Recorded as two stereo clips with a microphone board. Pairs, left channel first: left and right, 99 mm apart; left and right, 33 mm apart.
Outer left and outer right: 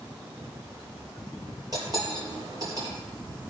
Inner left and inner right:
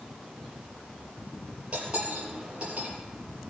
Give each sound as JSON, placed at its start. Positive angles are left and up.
{"t": 1.7, "sound": "cutlery clinking", "side_deg": -35, "distance_m": 4.5}